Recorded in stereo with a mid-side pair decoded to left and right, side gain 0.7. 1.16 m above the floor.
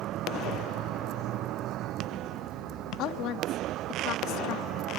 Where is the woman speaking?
60° left.